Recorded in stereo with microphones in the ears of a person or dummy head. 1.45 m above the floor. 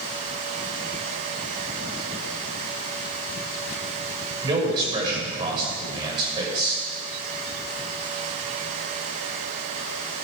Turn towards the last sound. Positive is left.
turn(degrees=-25)  # may be behind; listen again after turning